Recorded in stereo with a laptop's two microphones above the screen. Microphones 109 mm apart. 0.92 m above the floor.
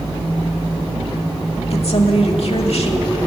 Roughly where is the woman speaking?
Left.